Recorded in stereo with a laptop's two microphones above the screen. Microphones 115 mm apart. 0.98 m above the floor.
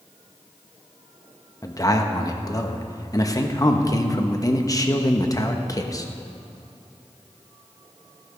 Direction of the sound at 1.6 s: 30° left (ahead or behind).